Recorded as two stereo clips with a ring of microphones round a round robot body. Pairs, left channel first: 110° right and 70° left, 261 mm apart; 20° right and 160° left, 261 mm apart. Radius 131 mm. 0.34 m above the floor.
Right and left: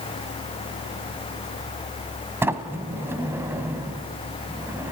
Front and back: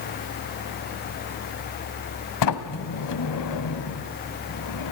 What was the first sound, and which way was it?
A sliding door, 15° right.